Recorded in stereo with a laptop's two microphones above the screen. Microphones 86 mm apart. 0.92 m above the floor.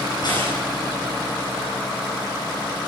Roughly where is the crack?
Left.